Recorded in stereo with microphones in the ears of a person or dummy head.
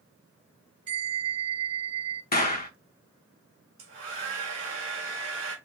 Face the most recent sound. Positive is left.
turn(degrees=-40)  # may be behind; listen again after turning